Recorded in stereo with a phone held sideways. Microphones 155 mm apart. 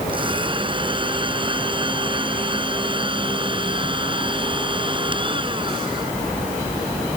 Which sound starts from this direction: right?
A blender, at 0.1 s.